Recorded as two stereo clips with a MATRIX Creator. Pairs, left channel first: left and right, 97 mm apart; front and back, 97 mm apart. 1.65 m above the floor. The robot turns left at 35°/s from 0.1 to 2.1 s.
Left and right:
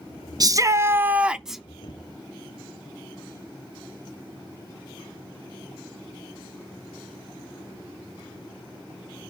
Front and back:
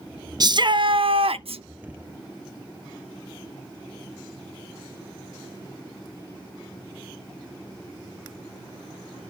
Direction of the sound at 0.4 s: 135° right.